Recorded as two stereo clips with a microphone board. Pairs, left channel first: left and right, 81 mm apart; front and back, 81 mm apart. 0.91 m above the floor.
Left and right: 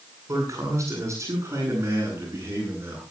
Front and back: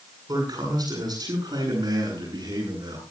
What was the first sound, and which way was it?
A man speaking, 140° right.